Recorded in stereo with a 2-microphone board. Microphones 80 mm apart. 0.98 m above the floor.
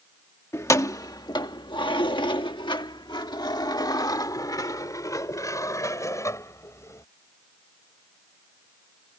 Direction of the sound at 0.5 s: 35° left (ahead or behind).